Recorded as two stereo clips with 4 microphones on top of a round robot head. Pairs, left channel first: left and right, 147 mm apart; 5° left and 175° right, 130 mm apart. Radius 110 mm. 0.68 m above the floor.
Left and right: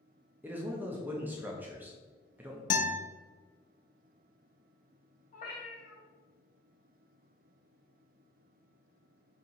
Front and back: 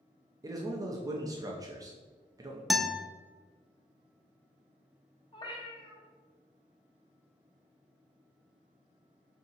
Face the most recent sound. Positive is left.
turn(degrees=55)